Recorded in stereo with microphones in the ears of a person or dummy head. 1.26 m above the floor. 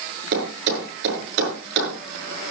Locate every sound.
0.3 s a thud: 75° right (ahead or behind), 7.5 m